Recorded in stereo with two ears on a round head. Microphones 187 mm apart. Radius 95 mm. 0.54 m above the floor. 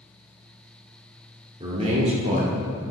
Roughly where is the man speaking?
Right.